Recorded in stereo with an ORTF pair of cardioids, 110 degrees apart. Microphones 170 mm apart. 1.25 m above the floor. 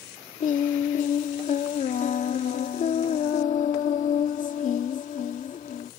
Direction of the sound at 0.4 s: 50° left.